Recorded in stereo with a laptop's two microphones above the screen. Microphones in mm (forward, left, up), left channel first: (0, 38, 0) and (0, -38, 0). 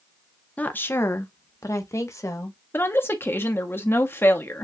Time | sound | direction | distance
0.6 | a woman speaking | 20° left (ahead or behind) | 0.5 m
2.7 | a woman speaking | 30° left (ahead or behind) | 0.8 m